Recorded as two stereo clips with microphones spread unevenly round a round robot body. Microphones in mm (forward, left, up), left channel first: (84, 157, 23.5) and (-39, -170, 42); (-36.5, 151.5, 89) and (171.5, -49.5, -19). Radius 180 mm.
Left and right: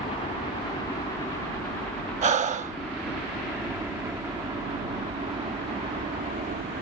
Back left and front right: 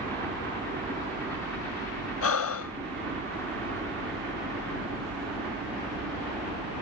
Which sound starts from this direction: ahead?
A helicopter, at 0.0 s.